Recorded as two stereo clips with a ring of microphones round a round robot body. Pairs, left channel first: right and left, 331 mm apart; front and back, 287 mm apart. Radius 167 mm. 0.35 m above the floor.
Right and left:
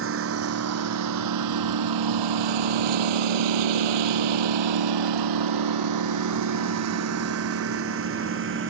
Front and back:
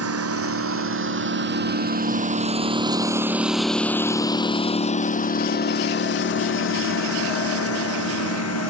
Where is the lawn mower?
145° left; by 8.7 s 35° left.